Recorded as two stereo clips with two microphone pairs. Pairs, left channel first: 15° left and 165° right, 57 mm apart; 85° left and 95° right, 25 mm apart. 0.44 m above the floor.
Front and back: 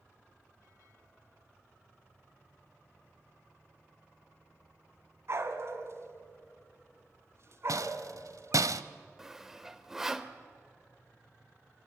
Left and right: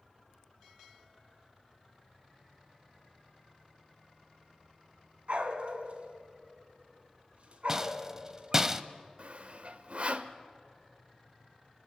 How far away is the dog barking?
About 1.8 m.